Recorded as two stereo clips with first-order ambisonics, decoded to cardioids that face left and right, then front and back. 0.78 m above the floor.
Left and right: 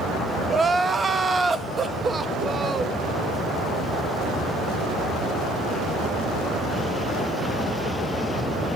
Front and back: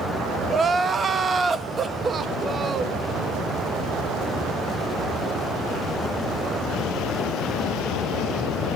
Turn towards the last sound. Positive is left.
turn(degrees=-145)